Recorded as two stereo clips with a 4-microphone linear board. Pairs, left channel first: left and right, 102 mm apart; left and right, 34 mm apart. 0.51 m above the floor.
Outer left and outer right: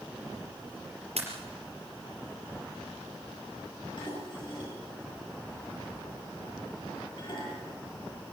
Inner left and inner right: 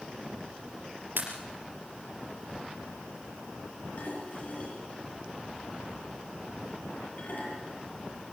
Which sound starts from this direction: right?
A pop, at 1.2 s.